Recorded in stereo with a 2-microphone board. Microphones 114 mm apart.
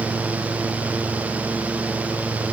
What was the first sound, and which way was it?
Only background noise.